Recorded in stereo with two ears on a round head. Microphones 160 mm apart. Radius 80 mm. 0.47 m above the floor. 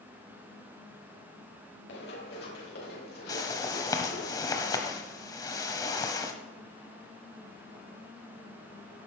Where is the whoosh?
20° left (ahead or behind), 1.5 m.